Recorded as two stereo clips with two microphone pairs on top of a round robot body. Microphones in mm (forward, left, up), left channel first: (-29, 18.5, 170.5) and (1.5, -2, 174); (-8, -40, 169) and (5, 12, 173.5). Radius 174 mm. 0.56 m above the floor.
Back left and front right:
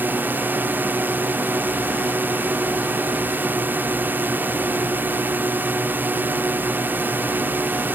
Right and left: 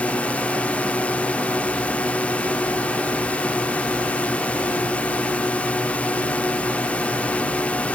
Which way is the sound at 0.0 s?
45° right.